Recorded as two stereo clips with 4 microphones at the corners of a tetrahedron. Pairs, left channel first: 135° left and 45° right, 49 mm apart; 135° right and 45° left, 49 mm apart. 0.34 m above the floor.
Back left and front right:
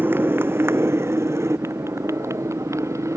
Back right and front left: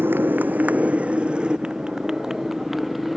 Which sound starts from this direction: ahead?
A motorcycle, at 0.0 s.